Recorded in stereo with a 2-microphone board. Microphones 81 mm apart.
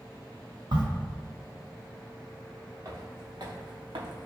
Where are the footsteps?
45° right (ahead or behind), 1.3 m; by 4.3 s 75° right (ahead or behind), 0.6 m.